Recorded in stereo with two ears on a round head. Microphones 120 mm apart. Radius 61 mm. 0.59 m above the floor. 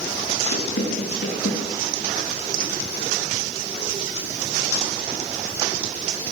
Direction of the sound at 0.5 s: 85° left.